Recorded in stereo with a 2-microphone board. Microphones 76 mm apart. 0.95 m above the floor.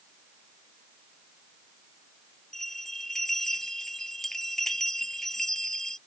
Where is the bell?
5° left (ahead or behind).